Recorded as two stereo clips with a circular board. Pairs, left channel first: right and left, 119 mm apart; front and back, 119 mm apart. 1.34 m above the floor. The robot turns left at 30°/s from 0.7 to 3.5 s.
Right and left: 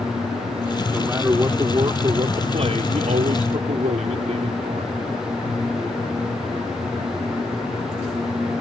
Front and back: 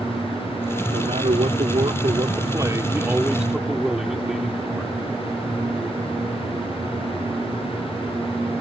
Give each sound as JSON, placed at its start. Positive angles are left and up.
{"t": 0.9, "sound": "a man speaking", "azimuth_deg": 170}